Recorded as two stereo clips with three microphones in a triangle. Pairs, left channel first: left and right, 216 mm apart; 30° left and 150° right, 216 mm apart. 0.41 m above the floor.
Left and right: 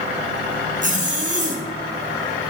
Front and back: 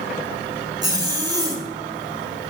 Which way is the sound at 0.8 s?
90° right.